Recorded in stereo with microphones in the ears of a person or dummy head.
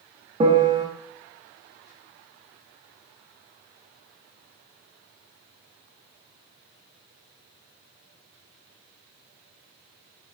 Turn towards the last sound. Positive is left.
turn(degrees=-15)  # may be behind; listen again after turning